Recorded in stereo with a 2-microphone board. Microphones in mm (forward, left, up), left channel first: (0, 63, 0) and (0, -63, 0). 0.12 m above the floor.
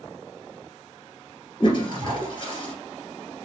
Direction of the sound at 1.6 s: 40° left (ahead or behind).